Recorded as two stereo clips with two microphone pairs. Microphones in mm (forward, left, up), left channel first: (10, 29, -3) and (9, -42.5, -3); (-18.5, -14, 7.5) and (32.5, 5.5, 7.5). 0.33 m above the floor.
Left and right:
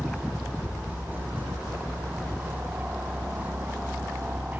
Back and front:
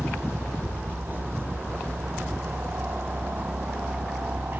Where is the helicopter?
25° right.